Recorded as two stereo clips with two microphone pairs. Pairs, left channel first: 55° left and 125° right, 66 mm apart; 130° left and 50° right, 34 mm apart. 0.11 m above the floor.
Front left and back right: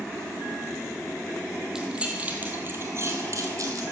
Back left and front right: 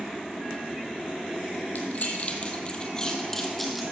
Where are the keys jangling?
160° left, 2 m; by 3.8 s 145° right, 2.5 m.